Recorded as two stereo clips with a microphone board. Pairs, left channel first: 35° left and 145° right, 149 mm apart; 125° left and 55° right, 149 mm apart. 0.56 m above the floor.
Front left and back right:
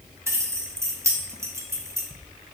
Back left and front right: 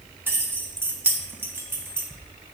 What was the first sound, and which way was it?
Keys jangling, 105° right.